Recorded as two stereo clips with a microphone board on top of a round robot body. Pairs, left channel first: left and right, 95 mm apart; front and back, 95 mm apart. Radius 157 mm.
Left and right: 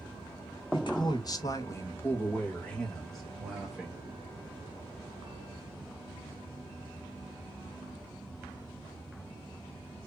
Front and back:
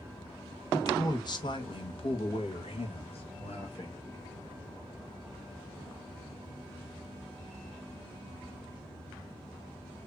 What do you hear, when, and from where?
0.7 s a man speaking: 55° left, 1.4 m; by 4.0 s 10° right, 2 m